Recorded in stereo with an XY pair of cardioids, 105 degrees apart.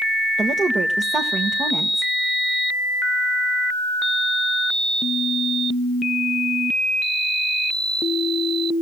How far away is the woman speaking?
About 1.4 m.